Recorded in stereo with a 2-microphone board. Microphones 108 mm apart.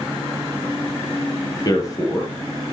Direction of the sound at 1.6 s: 35° left (ahead or behind).